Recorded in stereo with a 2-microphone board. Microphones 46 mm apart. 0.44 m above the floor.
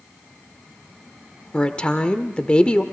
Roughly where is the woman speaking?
Left.